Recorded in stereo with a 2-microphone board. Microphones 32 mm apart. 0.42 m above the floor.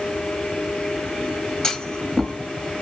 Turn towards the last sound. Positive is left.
turn(degrees=20)  # may be behind; listen again after turning